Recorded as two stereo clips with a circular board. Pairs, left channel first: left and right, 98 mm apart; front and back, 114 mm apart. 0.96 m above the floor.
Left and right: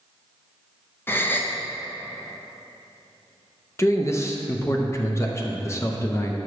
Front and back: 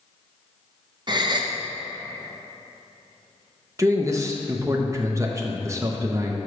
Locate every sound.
1.1 s a gasp: 150° left, 0.7 m
3.8 s a man speaking: 135° left, 0.6 m